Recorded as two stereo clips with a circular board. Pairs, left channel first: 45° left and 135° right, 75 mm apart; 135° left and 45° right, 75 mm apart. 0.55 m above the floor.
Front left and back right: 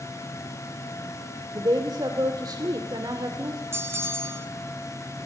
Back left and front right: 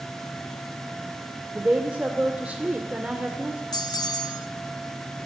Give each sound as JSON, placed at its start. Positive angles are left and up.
{"t": 1.5, "sound": "a woman speaking", "azimuth_deg": -115, "distance_m": 2.0}
{"t": 3.7, "sound": "a bell", "azimuth_deg": 170, "distance_m": 1.3}